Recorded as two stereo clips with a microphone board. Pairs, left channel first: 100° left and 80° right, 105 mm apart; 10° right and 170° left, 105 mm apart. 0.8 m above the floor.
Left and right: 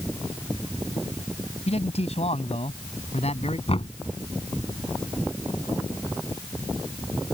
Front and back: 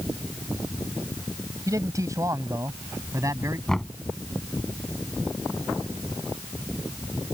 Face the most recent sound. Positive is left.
turn(degrees=75)